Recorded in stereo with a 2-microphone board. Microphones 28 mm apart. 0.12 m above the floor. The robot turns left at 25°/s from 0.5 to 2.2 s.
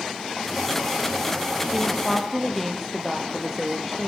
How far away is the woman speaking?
About 3.5 m.